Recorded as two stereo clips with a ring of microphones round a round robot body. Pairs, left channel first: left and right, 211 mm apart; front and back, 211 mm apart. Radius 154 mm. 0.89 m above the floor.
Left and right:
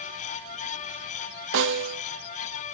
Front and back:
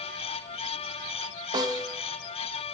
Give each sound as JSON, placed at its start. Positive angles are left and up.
{"t": 1.5, "sound": "a snare drum", "azimuth_deg": -105, "distance_m": 0.6}